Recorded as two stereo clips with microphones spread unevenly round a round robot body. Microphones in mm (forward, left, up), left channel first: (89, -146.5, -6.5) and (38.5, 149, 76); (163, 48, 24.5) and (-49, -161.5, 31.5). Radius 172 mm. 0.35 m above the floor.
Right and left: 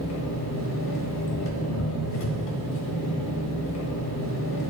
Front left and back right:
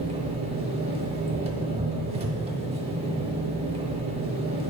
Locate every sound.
0.0 s an engine running: 65° right, 1.1 m